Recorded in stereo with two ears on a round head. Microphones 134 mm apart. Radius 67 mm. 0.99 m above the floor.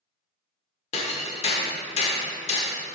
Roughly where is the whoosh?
I don't hear a whoosh.